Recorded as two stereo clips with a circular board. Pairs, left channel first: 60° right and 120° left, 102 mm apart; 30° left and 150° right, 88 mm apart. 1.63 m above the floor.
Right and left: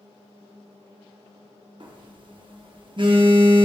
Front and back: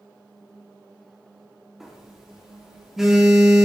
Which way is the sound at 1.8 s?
125° left.